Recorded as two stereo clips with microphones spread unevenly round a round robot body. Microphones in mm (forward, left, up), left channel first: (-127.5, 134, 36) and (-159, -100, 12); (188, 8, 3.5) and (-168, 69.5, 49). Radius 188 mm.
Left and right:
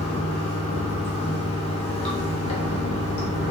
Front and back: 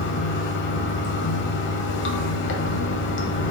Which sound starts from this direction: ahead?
Running water, at 0.0 s.